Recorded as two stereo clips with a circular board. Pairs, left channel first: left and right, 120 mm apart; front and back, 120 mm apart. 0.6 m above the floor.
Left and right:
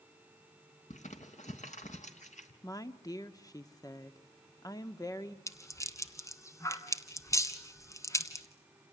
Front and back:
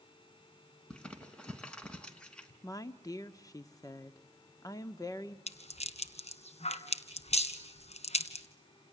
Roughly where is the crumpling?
Left.